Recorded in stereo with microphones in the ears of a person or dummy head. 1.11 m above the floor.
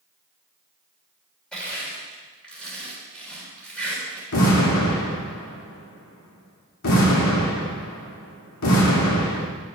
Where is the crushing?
5° left (ahead or behind), 3.5 m.